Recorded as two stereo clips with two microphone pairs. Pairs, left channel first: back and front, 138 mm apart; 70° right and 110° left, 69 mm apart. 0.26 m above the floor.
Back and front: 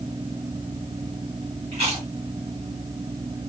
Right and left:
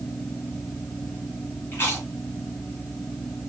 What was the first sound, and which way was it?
Chewing, 20° right.